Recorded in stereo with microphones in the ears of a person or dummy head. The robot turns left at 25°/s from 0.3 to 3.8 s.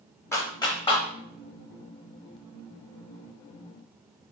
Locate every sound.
0.3 s a clap: 15° left (ahead or behind), 0.7 m; by 1.1 s 35° left (ahead or behind), 0.7 m